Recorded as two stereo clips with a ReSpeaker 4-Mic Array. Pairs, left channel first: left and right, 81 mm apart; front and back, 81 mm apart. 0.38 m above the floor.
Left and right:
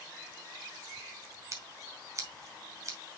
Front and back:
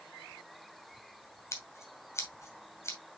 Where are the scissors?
50° right, 2 m.